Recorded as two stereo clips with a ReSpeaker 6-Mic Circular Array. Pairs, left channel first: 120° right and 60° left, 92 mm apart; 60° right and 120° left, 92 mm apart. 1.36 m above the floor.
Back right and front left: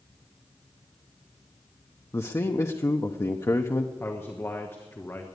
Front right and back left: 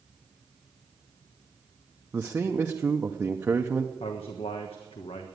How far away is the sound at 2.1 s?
About 0.7 m.